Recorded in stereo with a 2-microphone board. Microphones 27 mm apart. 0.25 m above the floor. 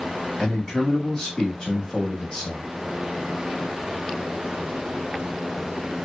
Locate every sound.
0.4 s a man speaking: 30° left (ahead or behind), 1.1 m